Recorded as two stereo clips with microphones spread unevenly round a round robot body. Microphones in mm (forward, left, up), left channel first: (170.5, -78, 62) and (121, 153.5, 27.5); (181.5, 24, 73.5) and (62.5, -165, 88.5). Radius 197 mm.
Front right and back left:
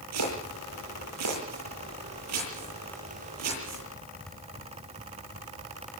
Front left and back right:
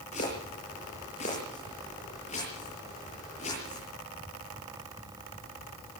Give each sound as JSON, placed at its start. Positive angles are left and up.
{"t": 0.1, "sound": "chopping", "azimuth_deg": 130, "distance_m": 9.0}